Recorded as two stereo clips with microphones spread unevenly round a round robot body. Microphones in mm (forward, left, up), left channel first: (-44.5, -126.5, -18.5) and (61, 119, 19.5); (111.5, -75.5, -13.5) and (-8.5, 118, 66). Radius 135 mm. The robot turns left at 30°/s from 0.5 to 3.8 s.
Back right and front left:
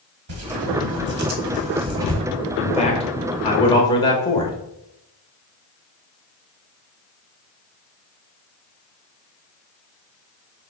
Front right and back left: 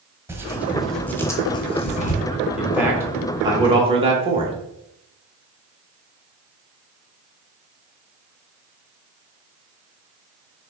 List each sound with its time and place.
0.3 s tearing paper: 30° left, 1.1 m; by 2.2 s 20° right, 1.1 m
2.6 s a man speaking: 120° right, 0.8 m; by 4.6 s 155° right, 0.8 m